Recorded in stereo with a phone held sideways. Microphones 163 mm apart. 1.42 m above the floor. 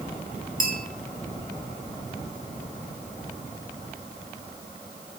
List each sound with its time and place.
0.6 s a bell: 55° right (ahead or behind), 2.5 m